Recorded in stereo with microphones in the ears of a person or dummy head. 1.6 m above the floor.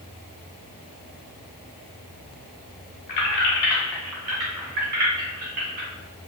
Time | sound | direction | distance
3.1 | keys jangling | 45° left (ahead or behind) | 0.8 m